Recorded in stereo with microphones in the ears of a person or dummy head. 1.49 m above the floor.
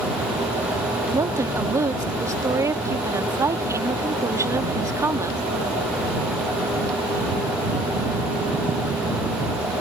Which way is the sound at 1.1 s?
15° right (ahead or behind).